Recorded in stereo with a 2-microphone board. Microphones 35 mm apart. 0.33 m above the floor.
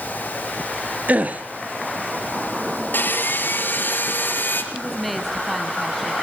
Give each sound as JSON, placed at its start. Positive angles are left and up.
{"t": 1.1, "sound": "a gasp", "side_deg": -50, "distance_m": 2.0}
{"t": 2.9, "sound": "sawing", "side_deg": 70, "distance_m": 4.0}
{"t": 4.7, "sound": "a woman speaking", "side_deg": 0, "distance_m": 2.0}